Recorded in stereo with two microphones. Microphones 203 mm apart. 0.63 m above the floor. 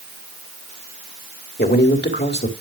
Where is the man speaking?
60° left (ahead or behind), 1.7 m.